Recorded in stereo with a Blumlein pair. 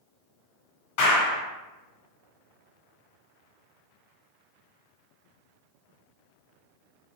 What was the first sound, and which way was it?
A clap, 50° left.